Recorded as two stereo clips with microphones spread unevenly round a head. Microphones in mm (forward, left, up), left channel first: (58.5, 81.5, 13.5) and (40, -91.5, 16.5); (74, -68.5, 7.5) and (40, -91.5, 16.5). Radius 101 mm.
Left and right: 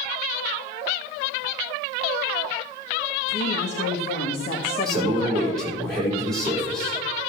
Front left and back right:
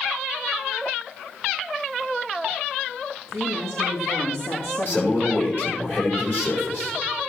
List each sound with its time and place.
3.3 s a woman speaking: 70° left, 1.8 m; by 5.6 s 15° left, 1.4 m
4.8 s a man speaking: 5° right, 4.5 m